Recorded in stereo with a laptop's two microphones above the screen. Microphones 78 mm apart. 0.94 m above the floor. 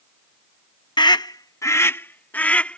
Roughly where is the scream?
Left.